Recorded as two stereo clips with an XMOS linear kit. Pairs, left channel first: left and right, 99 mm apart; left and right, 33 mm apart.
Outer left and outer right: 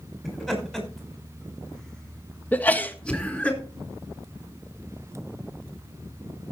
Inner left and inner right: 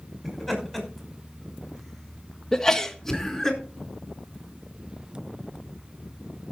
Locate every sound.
0.2 s laughter: centre (ahead or behind), 6 m; by 3.5 s 10° left (ahead or behind), 4 m
2.5 s a sneeze: 15° left (ahead or behind), 1.4 m